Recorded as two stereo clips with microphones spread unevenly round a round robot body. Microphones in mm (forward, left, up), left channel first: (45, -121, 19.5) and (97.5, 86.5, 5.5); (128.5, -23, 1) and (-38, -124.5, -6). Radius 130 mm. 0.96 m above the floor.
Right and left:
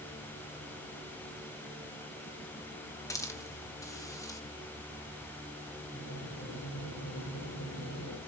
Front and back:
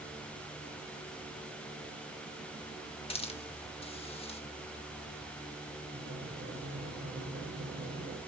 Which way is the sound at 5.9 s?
110° right.